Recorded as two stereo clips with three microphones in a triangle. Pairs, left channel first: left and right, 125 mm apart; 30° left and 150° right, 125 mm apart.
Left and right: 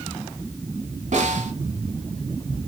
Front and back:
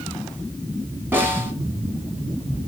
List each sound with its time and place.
1.1 s a snare drum: 75° right, 2 m